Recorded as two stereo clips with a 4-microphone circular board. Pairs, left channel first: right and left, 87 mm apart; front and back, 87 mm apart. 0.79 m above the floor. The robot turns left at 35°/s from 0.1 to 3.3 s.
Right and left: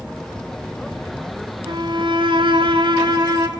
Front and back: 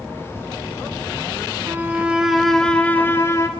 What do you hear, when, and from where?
1.7 s a violin: 115° left, 2.5 m; by 3.5 s 55° left, 2.5 m